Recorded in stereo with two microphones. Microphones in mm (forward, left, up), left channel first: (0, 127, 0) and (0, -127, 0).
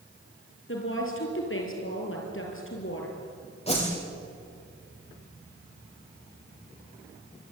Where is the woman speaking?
50° left (ahead or behind), 6.5 m.